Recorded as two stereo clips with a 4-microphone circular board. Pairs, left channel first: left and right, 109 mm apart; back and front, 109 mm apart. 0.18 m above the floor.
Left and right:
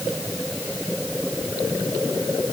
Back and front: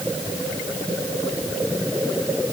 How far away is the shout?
No shout in this recording.